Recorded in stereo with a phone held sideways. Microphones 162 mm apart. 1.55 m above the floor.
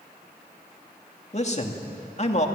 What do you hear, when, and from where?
1.3 s a man speaking: 45° left (ahead or behind), 2.5 m